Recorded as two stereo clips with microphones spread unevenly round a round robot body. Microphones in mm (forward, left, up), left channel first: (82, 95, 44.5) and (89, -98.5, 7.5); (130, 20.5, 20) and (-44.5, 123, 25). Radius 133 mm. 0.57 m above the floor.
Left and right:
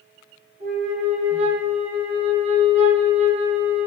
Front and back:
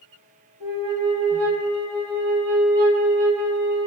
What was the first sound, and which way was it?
A flute, 155° right.